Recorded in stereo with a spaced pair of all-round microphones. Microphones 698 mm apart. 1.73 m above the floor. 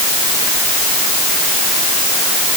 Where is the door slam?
No door slam in this recording.